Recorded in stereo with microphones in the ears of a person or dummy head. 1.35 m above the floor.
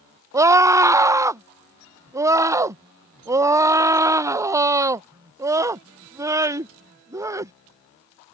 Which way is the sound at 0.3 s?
10° right (ahead or behind).